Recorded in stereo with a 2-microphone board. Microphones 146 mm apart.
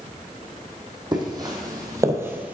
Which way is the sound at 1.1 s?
30° right (ahead or behind).